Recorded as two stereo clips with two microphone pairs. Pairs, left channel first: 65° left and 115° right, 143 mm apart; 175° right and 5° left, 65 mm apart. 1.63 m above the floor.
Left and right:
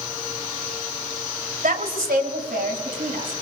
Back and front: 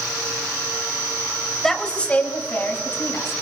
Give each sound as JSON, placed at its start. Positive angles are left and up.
{"t": 1.6, "sound": "a woman speaking", "azimuth_deg": -95, "distance_m": 1.6}